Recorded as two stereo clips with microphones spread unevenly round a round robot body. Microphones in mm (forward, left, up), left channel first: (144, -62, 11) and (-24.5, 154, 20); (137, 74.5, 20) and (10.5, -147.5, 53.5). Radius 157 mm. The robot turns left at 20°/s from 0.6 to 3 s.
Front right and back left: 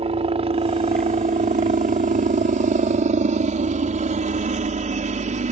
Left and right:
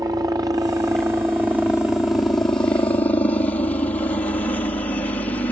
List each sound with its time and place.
0.0 s a helicopter: 165° left; by 5.5 s 120° left